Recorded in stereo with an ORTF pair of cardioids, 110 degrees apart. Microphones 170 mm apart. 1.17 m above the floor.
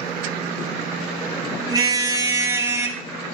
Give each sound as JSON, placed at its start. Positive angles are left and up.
{"t": 1.7, "sound": "a car horn", "azimuth_deg": -25, "distance_m": 3.5}